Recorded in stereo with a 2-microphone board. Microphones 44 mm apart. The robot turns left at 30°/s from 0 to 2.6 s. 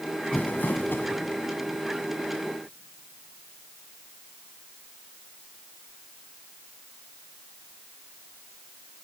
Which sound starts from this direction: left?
Crumpling, at 0.3 s.